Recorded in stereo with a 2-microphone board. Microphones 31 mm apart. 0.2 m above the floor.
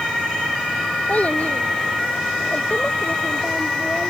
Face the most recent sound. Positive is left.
turn(degrees=50)  # may be behind; listen again after turning